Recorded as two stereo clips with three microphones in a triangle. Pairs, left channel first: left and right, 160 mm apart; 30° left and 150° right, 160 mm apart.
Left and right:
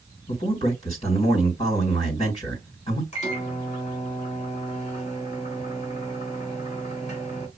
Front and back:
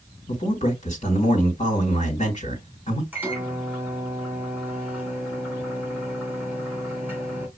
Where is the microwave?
135° left, 2.5 m.